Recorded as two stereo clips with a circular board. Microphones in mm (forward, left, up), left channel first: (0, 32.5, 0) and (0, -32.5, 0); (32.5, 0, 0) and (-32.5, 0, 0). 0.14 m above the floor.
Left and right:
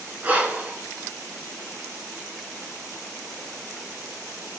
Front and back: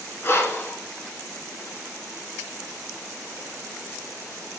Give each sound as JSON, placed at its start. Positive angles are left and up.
{"t": 0.2, "sound": "breathing", "azimuth_deg": -35, "distance_m": 1.3}